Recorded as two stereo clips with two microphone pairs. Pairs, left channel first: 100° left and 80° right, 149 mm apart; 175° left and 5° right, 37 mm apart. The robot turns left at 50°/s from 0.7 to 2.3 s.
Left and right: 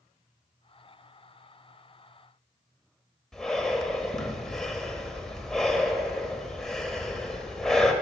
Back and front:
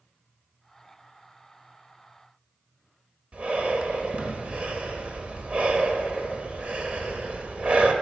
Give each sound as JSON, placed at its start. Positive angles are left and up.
{"t": 3.3, "sound": "breathing", "azimuth_deg": 15, "distance_m": 0.9}